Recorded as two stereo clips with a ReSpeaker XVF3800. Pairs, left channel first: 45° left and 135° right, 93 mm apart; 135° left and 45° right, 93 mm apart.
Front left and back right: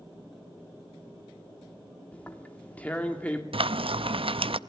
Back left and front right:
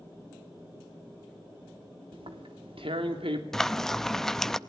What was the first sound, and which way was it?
Tearing paper, 30° right.